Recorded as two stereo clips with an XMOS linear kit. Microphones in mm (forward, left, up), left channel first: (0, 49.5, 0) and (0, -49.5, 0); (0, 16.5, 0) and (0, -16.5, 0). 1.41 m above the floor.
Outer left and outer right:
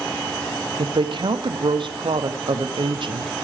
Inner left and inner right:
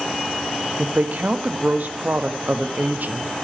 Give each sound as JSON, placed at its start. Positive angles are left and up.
{"t": 0.8, "sound": "a woman speaking", "side_deg": -55, "distance_m": 0.7}